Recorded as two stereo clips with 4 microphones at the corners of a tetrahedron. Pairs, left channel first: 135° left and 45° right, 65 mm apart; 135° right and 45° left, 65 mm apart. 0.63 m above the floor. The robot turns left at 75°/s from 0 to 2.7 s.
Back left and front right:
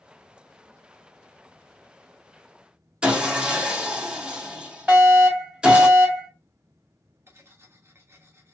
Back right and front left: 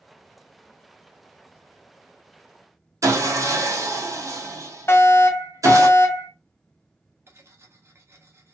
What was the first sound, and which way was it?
Sawing, 30° left.